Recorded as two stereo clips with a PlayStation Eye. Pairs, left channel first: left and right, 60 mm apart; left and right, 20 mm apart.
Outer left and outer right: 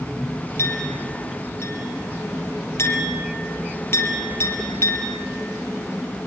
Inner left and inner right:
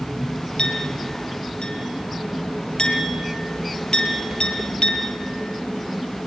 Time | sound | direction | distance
0.6 | a clink | 45° left (ahead or behind) | 4 m